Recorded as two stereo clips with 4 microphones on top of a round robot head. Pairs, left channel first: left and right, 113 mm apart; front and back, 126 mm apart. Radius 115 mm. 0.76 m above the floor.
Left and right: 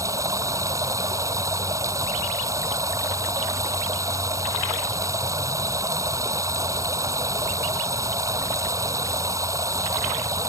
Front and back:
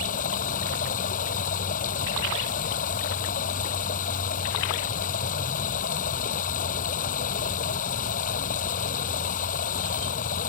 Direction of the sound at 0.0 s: 30° right.